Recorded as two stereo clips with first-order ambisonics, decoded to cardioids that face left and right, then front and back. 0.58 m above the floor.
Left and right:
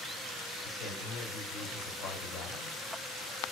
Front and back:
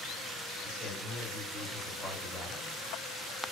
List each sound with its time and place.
0.6 s a man speaking: 90° left, 1.5 m